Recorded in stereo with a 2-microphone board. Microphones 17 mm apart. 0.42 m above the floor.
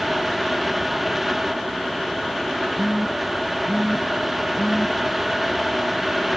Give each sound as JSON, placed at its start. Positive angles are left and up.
{"t": 2.8, "sound": "a phone buzzing", "side_deg": -25, "distance_m": 2.5}